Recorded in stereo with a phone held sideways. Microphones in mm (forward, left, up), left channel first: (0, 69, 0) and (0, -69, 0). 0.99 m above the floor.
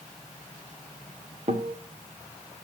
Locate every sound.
1.5 s a guitar: 50° right (ahead or behind), 1.9 m